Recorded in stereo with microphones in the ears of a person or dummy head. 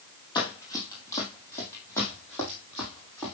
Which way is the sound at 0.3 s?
20° left (ahead or behind).